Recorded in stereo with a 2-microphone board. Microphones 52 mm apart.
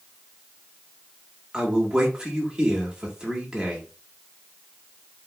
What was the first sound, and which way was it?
A man speaking, 15° right (ahead or behind).